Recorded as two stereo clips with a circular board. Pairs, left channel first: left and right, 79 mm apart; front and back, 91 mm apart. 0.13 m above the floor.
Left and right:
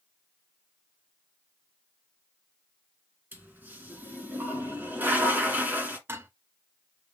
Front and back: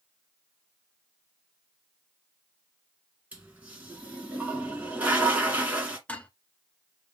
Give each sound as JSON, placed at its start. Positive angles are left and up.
{"t": 3.3, "sound": "a toilet flushing", "azimuth_deg": -125, "distance_m": 1.6}
{"t": 6.1, "sound": "dishes clattering", "azimuth_deg": -65, "distance_m": 0.8}